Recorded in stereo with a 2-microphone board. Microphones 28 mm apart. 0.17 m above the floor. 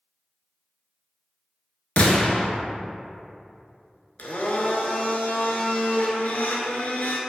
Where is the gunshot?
65° left (ahead or behind), 0.6 m.